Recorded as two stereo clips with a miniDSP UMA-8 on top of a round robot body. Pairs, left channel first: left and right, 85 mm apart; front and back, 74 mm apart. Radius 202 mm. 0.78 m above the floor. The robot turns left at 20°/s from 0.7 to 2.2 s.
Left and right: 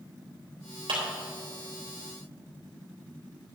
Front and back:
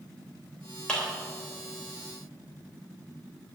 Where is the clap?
75° right, 3 m; by 1.0 s 80° right, 3 m.